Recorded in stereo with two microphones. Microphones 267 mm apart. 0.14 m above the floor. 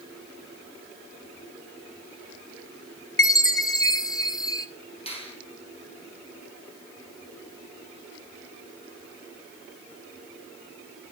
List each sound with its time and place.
3.2 s a chime: 15° left (ahead or behind), 0.9 m
5.1 s a finger snap: 20° left (ahead or behind), 4.5 m